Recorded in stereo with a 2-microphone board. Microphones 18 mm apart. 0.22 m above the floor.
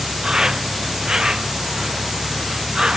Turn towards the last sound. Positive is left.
turn(degrees=-45)  # may be behind; listen again after turning